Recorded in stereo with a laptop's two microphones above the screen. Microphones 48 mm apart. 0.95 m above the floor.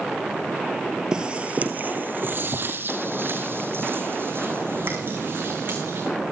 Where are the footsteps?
20° right (ahead or behind), 1.1 m; by 6.1 s 50° right (ahead or behind), 4.5 m.